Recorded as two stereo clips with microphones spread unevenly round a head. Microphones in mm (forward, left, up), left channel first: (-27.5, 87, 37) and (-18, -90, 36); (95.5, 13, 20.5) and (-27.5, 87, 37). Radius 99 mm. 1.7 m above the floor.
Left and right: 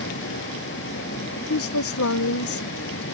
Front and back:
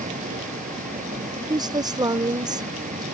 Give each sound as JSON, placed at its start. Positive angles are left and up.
{"t": 0.0, "sound": "a vehicle", "azimuth_deg": 115}
{"t": 1.5, "sound": "a woman speaking", "azimuth_deg": 85}